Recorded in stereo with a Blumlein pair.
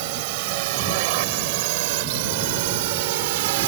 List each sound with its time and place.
0.0 s a drone: 45° right; by 3.7 s 50° right